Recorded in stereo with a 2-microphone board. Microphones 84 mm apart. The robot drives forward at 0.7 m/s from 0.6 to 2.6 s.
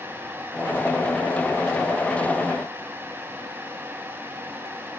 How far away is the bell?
I don't hear a bell.